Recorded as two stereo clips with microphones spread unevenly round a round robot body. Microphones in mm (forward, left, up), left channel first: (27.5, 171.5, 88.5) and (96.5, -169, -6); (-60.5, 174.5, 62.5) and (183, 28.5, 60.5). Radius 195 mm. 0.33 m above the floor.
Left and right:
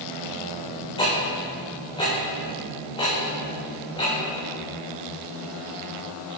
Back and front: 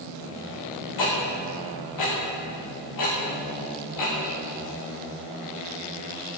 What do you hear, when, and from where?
1.0 s ticking: straight behind, 5 m